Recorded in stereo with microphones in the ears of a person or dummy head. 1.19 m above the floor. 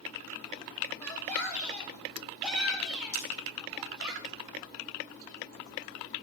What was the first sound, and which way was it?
A shout, 10° left (ahead or behind).